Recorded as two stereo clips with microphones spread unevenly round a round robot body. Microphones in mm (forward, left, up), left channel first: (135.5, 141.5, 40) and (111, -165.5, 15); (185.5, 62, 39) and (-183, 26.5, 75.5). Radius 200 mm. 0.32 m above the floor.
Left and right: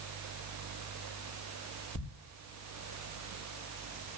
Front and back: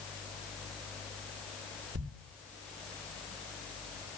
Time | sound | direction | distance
1.9 | a thud | 145° left | 4.5 m